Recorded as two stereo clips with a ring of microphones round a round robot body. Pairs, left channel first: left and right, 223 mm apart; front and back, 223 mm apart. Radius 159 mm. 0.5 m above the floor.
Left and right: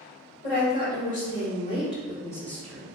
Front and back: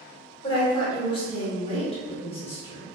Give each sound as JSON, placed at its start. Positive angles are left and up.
{"t": 0.4, "sound": "a woman speaking", "azimuth_deg": 65, "distance_m": 1.9}